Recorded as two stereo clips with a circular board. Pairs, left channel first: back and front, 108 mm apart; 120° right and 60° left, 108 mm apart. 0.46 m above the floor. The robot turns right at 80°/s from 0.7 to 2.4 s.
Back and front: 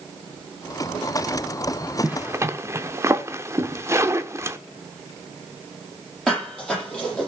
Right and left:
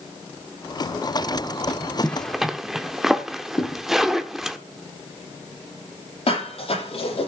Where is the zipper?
55° right, 1.0 m; by 4.6 s 25° right, 1.0 m.